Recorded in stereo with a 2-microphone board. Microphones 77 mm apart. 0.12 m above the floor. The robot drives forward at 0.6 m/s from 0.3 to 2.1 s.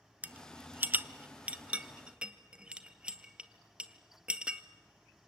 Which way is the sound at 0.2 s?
20° right (ahead or behind).